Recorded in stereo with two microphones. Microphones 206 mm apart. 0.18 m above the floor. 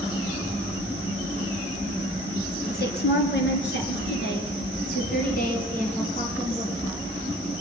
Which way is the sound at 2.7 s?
50° left (ahead or behind).